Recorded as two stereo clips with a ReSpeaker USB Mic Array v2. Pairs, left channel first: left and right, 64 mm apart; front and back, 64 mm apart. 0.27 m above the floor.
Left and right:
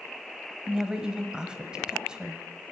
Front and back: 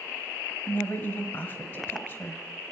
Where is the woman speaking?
20° right, 1.1 m.